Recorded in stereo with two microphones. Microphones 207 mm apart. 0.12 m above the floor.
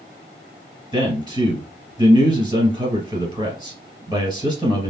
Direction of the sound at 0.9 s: 20° right (ahead or behind).